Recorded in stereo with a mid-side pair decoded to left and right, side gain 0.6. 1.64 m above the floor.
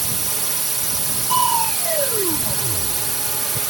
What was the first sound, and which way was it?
A drone, 25° right.